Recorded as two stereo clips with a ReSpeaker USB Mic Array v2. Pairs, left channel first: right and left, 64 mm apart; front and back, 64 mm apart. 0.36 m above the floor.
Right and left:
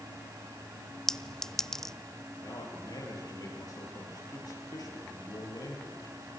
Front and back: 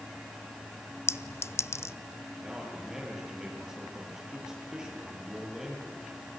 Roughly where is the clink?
Ahead.